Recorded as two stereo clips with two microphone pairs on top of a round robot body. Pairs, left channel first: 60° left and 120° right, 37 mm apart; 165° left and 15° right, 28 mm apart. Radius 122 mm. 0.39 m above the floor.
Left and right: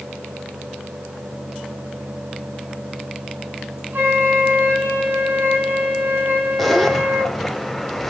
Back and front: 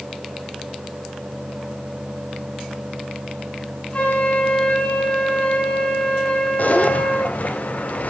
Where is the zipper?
150° left, 2.5 m.